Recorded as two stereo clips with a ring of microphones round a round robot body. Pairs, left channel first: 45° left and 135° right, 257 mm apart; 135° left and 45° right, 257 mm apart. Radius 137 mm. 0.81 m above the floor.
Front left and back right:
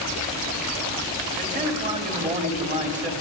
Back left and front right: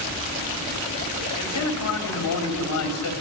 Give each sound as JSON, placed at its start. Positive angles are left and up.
{"t": 1.4, "sound": "a man speaking", "azimuth_deg": 160, "distance_m": 3.0}